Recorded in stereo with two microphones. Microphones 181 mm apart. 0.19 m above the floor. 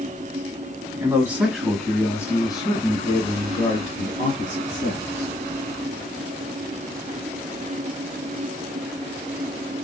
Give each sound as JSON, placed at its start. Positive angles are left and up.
{"t": 1.0, "sound": "a man speaking", "side_deg": -15, "distance_m": 1.7}